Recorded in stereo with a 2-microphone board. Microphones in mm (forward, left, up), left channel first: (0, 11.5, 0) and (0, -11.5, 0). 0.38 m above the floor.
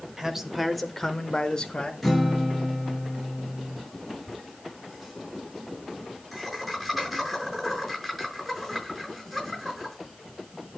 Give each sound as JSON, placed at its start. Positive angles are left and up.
{"t": 0.2, "sound": "a man speaking", "side_deg": -20, "distance_m": 1.2}
{"t": 2.0, "sound": "a guitar", "side_deg": -5, "distance_m": 2.5}
{"t": 4.3, "sound": "laughter", "side_deg": -5, "distance_m": 6.0}